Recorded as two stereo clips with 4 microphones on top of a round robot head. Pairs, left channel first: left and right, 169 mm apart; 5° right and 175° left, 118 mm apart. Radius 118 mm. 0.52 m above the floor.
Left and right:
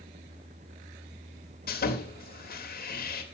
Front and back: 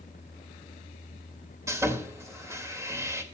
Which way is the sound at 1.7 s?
110° left.